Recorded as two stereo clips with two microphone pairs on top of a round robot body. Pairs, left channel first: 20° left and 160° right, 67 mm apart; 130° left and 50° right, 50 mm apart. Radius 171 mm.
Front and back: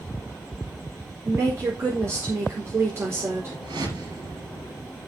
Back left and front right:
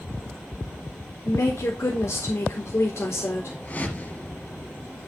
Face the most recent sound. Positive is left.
turn(degrees=-175)